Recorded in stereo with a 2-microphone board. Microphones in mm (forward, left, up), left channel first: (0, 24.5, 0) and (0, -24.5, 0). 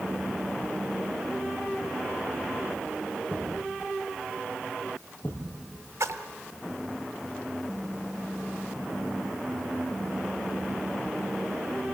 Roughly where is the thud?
Left.